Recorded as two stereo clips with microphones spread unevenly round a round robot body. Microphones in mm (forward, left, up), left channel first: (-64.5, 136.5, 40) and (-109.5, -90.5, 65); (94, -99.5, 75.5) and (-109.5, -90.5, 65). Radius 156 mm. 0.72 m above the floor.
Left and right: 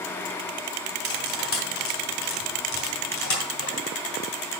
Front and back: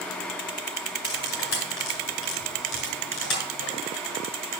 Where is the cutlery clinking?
40° left, 3 m.